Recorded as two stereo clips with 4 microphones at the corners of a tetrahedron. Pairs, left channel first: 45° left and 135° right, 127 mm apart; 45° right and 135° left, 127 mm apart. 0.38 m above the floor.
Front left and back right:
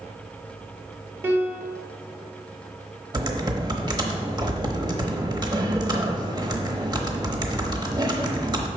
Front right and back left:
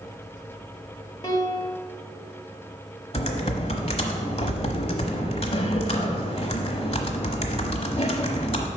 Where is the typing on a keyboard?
80° right, 1.0 m.